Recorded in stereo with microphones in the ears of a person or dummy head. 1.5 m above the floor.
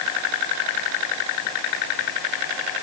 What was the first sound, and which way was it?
Only background noise.